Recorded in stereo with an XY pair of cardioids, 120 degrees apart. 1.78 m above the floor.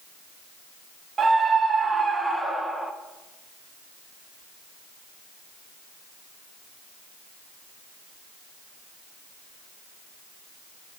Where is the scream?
25° right, 1.9 m; by 2.9 s 10° left, 1.9 m.